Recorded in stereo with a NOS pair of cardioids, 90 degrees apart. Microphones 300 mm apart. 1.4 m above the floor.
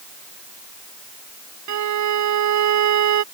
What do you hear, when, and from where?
1.7 s a violin: 70° right